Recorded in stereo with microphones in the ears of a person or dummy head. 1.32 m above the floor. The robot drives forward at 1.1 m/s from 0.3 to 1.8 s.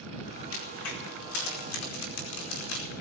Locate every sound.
0.5 s a crack: 85° left, 4.5 m; by 3.0 s 70° left (ahead or behind), 4.5 m